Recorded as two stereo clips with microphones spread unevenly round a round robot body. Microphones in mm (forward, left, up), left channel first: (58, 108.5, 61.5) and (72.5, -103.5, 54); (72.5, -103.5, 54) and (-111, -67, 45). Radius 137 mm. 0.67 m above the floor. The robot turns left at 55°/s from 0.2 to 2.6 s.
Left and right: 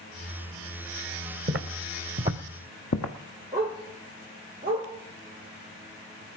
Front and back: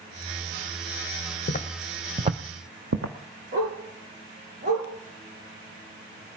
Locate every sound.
1.5 s footsteps: 45° right, 1.6 m; by 3.1 s 125° left, 1.5 m
3.5 s a dog barking: 165° right, 4.5 m